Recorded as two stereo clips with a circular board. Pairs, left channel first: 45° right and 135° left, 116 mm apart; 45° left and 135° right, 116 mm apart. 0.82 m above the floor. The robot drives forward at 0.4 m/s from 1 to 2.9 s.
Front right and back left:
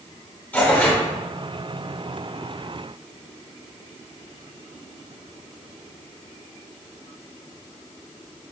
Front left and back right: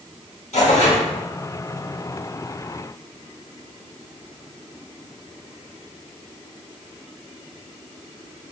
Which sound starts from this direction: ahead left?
Tearing paper, at 0.5 s.